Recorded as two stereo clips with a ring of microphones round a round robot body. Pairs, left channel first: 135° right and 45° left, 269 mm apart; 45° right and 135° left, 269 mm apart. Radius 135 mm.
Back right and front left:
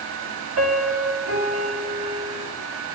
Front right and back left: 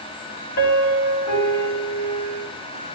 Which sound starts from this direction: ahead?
A piano, at 0.6 s.